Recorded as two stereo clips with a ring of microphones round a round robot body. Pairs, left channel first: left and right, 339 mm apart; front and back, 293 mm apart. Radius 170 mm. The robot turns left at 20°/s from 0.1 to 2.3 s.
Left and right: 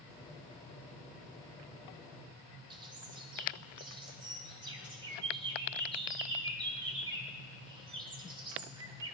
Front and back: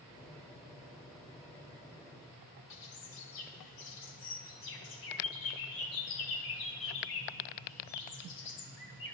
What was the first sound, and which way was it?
A bird, 15° right.